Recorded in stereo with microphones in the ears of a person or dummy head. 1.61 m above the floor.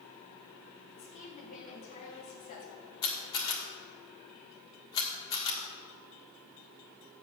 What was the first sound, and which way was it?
A woman speaking, 35° left (ahead or behind).